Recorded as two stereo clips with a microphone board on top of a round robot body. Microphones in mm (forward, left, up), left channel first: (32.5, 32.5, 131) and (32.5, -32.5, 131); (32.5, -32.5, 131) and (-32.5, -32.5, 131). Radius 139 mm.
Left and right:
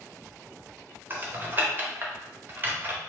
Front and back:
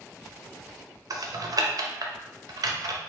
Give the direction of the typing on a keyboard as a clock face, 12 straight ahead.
5 o'clock.